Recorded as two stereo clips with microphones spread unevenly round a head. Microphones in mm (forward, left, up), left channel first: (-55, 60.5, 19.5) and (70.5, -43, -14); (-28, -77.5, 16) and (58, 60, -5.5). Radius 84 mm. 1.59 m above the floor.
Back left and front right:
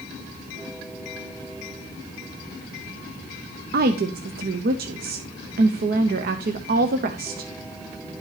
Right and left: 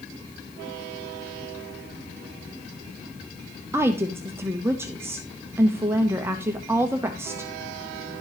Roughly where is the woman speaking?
Ahead.